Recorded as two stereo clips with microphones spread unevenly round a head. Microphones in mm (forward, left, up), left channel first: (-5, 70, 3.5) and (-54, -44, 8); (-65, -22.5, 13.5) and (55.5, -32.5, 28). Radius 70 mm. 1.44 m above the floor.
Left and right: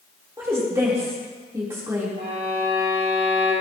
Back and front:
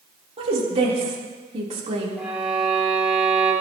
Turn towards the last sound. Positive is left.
turn(degrees=-90)